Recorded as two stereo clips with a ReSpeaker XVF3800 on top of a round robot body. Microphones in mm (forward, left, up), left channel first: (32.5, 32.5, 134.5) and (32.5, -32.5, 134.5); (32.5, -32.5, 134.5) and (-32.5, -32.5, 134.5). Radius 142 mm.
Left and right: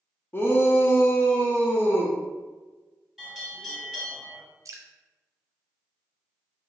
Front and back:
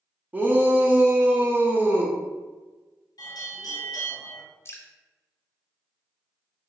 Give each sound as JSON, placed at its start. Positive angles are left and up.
{"t": 0.3, "sound": "a shout", "azimuth_deg": 130, "distance_m": 0.9}
{"t": 3.2, "sound": "a bell", "azimuth_deg": 0, "distance_m": 1.3}
{"t": 4.7, "sound": "dripping", "azimuth_deg": -50, "distance_m": 0.6}